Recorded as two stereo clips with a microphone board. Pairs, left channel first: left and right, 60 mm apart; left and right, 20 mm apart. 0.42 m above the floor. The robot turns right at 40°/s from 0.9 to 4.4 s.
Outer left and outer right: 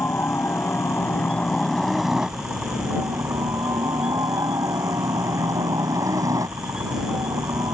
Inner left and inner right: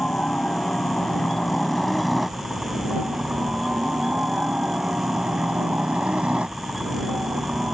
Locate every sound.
0.0 s a helicopter: 135° left; by 7.8 s 85° right